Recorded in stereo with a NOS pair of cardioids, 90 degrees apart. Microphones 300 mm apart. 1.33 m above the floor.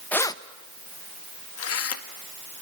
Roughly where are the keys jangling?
Ahead.